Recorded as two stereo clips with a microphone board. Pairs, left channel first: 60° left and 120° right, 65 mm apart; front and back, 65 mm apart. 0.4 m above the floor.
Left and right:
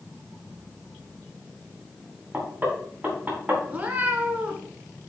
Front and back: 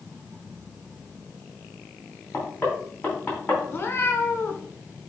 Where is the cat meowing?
55° right, 1.2 m.